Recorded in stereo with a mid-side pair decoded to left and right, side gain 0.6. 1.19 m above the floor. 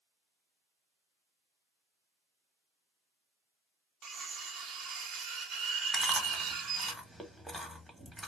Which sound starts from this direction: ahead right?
Cutlery clinking, at 4.0 s.